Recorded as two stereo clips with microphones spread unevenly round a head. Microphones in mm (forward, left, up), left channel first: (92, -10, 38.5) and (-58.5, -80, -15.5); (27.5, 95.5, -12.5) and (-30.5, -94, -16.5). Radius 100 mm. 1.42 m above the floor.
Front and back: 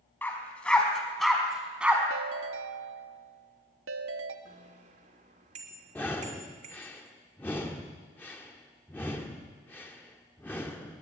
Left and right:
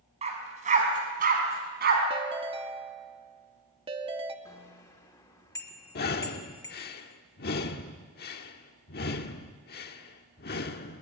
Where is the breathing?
90° left, 1.4 m.